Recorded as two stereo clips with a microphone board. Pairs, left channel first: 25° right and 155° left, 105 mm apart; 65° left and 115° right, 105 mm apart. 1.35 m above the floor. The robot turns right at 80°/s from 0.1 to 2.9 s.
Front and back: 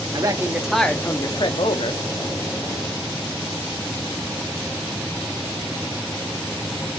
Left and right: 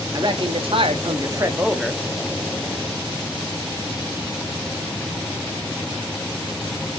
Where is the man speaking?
160° right, 0.8 m; by 2.0 s 10° right, 0.8 m.